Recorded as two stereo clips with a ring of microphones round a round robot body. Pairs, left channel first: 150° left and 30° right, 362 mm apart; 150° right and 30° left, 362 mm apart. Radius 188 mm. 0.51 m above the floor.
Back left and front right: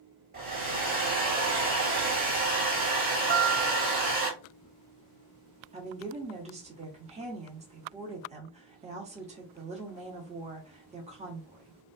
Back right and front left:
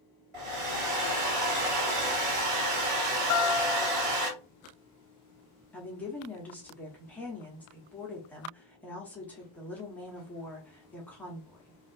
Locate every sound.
0.3 s a hair dryer: 40° left, 1.4 m
3.3 s a guitar: 95° right, 0.7 m
5.7 s a woman speaking: 70° right, 0.9 m